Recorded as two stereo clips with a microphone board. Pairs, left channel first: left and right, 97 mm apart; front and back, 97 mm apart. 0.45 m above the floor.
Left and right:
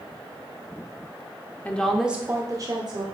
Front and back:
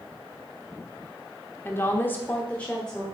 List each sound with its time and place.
1.6 s a woman speaking: 35° left, 0.9 m; by 3.0 s 80° right, 1.2 m